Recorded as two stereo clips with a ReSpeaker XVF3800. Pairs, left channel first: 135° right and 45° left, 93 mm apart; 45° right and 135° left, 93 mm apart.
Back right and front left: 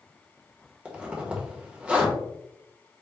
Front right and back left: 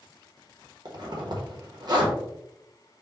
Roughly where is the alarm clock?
No alarm clock in this recording.